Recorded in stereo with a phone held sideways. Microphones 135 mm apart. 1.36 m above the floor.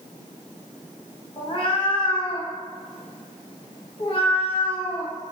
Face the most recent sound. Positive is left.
turn(degrees=40)  # may be behind; listen again after turning